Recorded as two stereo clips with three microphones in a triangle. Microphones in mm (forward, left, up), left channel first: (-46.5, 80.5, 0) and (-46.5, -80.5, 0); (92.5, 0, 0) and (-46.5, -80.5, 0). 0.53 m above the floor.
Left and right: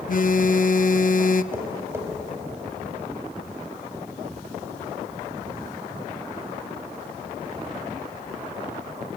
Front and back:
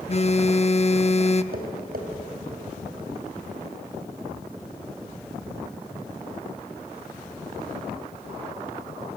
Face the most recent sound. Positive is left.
turn(degrees=-165)